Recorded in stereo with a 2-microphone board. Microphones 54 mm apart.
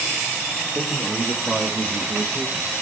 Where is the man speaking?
10° right (ahead or behind), 3.5 m; by 2.7 s 40° right (ahead or behind), 1.8 m.